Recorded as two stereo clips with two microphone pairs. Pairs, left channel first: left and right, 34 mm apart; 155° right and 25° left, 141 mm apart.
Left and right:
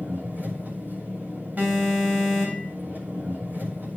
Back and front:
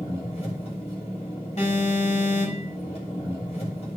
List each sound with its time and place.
0.0 s an engine running: 115° right, 6.5 m
1.6 s an alarm: 120° right, 5 m